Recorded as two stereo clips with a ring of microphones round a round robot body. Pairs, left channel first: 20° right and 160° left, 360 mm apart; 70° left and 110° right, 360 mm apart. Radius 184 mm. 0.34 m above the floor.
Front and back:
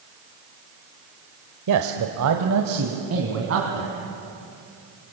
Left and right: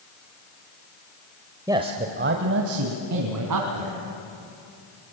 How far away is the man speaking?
About 1.3 m.